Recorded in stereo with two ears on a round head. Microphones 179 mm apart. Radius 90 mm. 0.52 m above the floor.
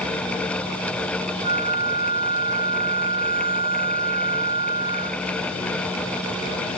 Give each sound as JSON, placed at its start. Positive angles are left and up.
{"t": 1.4, "sound": "a flute", "side_deg": -30}